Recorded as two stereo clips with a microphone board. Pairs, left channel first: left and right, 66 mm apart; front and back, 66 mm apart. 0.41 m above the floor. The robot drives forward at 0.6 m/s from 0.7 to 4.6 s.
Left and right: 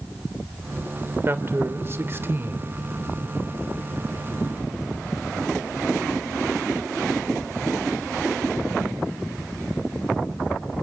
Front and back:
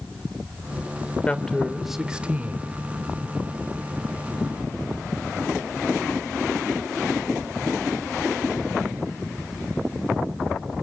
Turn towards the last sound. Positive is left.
turn(degrees=-160)